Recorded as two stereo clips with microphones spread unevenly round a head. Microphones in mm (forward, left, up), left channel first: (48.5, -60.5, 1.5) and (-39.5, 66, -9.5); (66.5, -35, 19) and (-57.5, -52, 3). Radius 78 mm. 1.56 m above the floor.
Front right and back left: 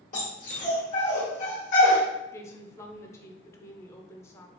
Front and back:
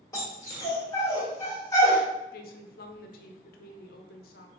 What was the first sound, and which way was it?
A dog barking, 40° right.